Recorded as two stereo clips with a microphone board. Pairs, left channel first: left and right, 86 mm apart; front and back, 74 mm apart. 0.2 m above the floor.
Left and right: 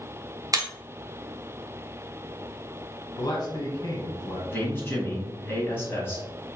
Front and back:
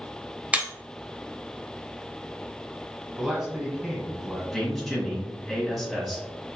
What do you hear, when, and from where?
0.5 s breaking glass: 115° right, 0.7 m
3.2 s a man speaking: 100° left, 1.5 m
4.5 s a man speaking: 90° left, 1.6 m